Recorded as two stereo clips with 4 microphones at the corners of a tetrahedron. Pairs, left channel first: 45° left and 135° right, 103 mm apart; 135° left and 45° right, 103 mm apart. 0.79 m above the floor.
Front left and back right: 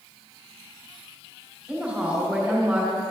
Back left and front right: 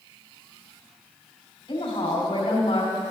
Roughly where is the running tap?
I don't hear a running tap.